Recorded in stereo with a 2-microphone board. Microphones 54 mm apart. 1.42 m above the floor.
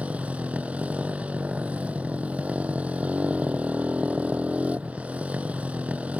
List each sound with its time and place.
0.0 s a motorcycle: 20° right (ahead or behind)